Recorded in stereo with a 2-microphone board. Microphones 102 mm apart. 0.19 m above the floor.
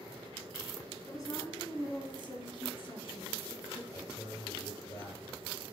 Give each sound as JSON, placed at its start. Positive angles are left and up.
{"t": 1.1, "sound": "a woman speaking", "side_deg": 35, "distance_m": 2.0}
{"t": 3.9, "sound": "a man speaking", "side_deg": 30, "distance_m": 4.5}